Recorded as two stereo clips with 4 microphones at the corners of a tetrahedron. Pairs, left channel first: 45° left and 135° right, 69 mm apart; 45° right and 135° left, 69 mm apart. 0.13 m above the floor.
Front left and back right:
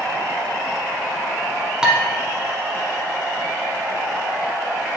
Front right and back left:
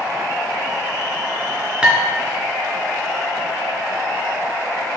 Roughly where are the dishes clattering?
Behind.